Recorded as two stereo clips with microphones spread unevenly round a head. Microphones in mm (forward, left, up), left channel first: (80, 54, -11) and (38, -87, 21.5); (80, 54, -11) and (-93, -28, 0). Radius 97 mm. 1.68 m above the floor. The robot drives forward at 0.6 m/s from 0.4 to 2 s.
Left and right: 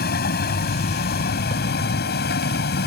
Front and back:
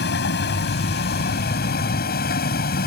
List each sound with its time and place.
0.0 s a vehicle: 60° left; by 2.9 s 65° left